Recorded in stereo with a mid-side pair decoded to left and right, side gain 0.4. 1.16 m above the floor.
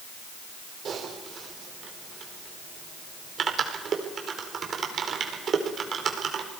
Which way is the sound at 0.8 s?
55° right.